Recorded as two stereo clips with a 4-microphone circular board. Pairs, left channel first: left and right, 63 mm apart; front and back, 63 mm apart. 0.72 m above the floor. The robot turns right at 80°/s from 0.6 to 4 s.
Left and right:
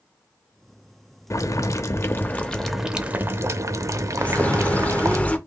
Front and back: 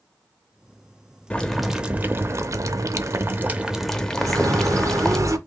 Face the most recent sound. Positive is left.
turn(degrees=155)